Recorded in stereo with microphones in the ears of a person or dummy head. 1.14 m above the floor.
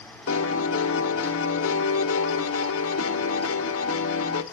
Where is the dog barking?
I don't hear a dog barking.